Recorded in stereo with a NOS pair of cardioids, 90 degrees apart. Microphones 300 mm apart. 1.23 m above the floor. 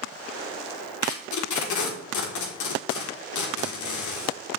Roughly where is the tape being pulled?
Ahead left.